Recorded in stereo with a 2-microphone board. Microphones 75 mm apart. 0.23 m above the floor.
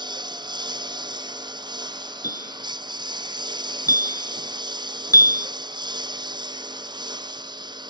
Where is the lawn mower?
70° right (ahead or behind).